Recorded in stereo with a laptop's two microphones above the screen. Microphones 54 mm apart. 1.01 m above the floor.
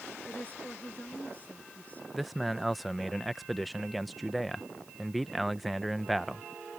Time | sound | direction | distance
0.2 | a woman speaking | 30° left (ahead or behind) | ?
2.1 | a man speaking | centre (ahead or behind) | ?